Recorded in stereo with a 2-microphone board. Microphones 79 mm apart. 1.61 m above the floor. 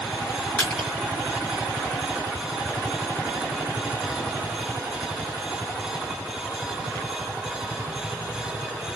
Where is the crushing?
20° left (ahead or behind), 2 m.